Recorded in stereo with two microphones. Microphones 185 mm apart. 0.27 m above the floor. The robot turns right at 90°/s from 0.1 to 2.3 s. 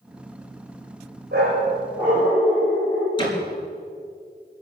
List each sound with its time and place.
1.3 s a dog barking: 75° right, 6.5 m; by 3.1 s 15° left, 6.5 m
3.2 s a door slam: 30° left (ahead or behind), 3.5 m